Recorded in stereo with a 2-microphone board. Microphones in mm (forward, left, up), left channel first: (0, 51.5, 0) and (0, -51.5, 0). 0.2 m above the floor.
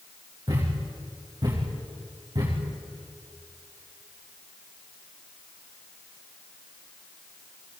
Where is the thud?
45° right (ahead or behind), 8 m.